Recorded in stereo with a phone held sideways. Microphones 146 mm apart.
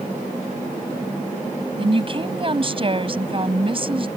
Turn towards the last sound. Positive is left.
turn(degrees=-40)  # may be behind; listen again after turning